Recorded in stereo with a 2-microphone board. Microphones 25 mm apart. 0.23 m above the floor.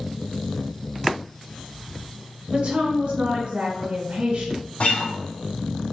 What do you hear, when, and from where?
2.5 s a woman speaking: 50° right (ahead or behind), 1.6 m
4.8 s a guitar: 70° left (ahead or behind), 2 m